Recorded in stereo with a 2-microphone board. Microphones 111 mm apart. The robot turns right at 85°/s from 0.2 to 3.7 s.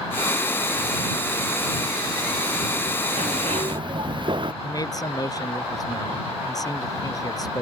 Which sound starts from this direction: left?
A man speaking, at 4.6 s.